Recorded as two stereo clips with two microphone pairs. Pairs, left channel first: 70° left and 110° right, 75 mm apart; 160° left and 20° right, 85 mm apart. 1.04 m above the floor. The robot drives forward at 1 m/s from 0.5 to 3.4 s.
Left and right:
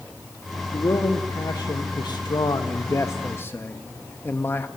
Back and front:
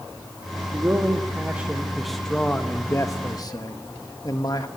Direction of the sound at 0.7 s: 35° left.